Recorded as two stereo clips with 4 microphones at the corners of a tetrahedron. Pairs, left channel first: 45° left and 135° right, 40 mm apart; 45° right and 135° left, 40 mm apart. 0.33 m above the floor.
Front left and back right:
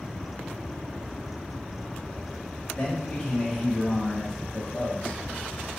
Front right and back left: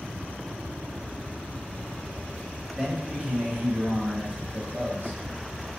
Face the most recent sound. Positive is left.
turn(degrees=130)